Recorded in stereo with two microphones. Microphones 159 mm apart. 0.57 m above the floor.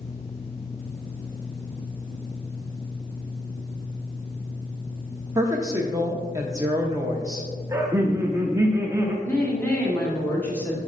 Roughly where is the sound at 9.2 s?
Centre.